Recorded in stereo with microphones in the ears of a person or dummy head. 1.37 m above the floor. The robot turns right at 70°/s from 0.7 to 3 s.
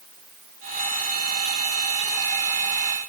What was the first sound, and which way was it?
Only background noise.